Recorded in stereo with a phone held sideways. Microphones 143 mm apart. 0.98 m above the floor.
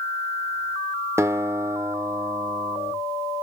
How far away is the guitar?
About 0.6 m.